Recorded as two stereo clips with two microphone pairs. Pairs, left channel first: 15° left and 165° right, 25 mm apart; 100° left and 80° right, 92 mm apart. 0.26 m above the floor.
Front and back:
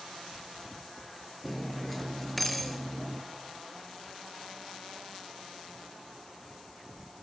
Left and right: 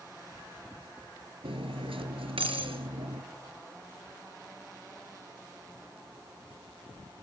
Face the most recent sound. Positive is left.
turn(degrees=-70)